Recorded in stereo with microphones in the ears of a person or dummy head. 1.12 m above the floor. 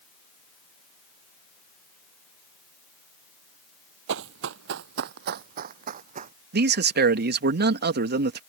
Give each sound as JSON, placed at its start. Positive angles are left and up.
{"t": 4.1, "sound": "running footsteps", "side_deg": -60}
{"t": 6.5, "sound": "a man speaking", "side_deg": -50}